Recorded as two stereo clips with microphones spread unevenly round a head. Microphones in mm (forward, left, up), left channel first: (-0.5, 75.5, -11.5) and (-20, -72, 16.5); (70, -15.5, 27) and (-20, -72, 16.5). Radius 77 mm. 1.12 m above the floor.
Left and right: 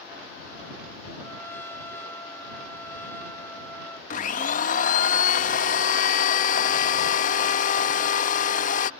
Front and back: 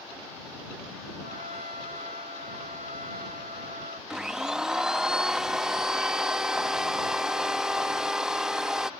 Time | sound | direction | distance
1.2 | a trumpet | 160° left | ?
4.1 | a blender | 125° left | ?